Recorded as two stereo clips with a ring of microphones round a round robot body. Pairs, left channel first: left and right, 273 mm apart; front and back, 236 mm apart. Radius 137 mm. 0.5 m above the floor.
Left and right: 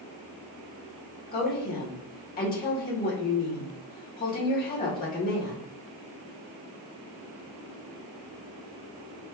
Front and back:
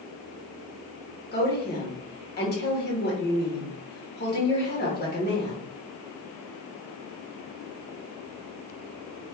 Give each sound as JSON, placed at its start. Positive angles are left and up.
{"t": 1.3, "sound": "a woman speaking", "azimuth_deg": 40, "distance_m": 1.9}